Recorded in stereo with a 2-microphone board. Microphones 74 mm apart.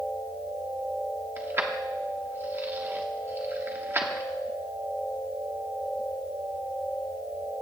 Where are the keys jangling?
30° right (ahead or behind), 1.3 m.